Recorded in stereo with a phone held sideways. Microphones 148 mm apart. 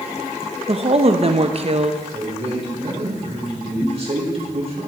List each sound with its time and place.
0.7 s a woman speaking: 45° right (ahead or behind), 0.8 m
2.1 s a man speaking: 45° right (ahead or behind), 4 m